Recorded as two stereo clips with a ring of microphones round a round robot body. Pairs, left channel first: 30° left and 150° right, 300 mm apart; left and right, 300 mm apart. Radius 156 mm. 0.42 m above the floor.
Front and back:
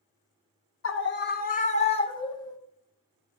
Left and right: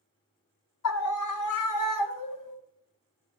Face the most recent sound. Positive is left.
turn(degrees=110)